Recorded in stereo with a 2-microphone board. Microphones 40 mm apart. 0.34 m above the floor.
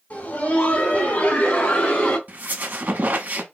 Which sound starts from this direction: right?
A squeak, at 2.3 s.